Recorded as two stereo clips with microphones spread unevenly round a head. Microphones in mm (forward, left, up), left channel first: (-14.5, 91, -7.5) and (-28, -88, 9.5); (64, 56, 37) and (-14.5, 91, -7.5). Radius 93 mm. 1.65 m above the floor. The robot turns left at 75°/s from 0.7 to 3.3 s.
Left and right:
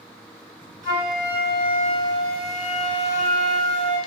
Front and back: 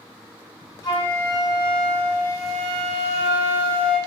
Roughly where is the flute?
Ahead right.